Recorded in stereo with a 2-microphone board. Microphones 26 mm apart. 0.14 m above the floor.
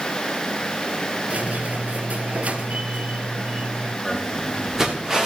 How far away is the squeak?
About 0.8 m.